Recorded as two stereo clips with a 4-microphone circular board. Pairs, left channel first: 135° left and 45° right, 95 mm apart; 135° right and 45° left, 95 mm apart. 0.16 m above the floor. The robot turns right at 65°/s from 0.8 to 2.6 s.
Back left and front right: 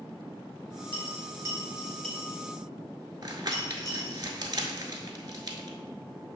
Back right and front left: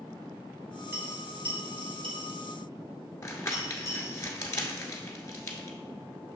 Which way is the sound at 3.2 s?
80° right.